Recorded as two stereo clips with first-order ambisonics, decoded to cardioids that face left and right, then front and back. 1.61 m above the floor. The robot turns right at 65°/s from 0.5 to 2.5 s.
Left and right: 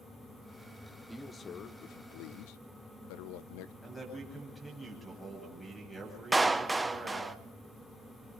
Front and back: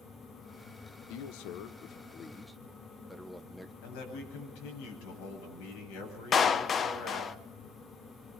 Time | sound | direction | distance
1.1 | a man speaking | 5° right | 1.0 m
3.8 | a man speaking | 10° left | 9.5 m
6.3 | a clap | 15° right | 0.6 m